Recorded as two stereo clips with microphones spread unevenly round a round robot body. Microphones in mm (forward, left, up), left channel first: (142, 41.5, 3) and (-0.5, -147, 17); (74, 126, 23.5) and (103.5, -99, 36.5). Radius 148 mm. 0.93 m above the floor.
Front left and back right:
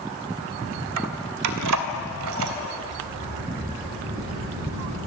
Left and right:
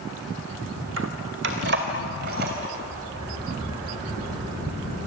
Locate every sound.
1.0 s keys jangling: 135° right, 1.5 m; by 2.5 s 140° right, 3.5 m
2.7 s a sliding door: 160° right, 7.5 m